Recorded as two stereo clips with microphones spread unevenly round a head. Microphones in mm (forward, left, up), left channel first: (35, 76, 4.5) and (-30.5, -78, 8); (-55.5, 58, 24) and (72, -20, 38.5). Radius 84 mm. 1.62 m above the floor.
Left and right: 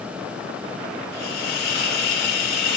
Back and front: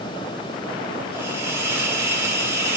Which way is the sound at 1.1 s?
40° left.